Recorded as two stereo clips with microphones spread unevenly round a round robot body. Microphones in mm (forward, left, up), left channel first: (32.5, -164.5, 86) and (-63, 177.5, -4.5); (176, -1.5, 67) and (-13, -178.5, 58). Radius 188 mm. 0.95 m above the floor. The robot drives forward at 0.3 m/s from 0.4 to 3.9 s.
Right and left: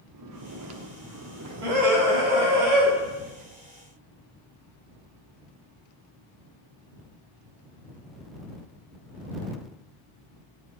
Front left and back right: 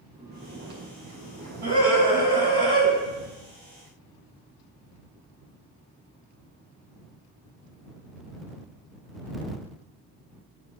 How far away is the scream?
About 5.5 m.